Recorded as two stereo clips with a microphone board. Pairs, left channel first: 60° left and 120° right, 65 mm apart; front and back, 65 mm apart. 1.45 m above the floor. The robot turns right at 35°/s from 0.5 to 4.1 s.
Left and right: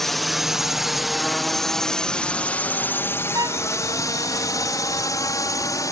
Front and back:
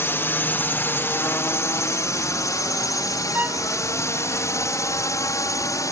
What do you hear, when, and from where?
0.0 s a drone: 25° right; by 5.9 s 30° left
3.3 s a violin: 120° right; by 3.7 s 110° right